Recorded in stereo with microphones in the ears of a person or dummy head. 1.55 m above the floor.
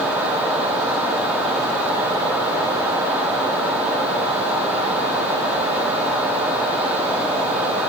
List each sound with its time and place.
Only background noise.